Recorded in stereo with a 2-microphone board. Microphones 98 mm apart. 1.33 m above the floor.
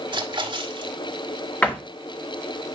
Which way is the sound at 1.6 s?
15° left (ahead or behind).